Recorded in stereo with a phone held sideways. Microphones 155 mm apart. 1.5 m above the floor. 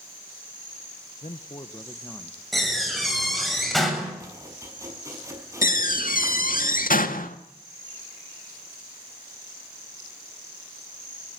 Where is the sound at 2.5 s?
Centre (ahead or behind), 7.5 m.